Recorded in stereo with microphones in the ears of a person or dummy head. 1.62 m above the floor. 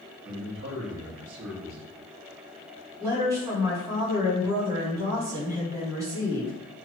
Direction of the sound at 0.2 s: 85° right.